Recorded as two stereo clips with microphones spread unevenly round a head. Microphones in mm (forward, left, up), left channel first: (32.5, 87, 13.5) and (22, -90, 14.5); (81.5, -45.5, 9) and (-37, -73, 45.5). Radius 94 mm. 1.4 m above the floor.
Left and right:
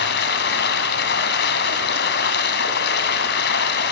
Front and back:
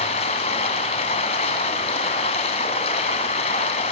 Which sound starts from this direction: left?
Running water, at 0.0 s.